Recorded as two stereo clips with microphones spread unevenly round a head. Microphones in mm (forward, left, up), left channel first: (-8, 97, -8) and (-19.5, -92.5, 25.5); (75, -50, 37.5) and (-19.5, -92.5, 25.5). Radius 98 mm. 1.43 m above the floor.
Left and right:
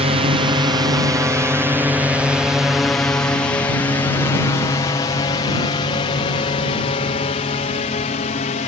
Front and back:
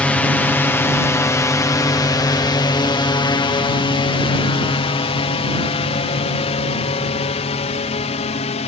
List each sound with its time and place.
0.0 s a drone: 55° right; by 8.7 s 35° left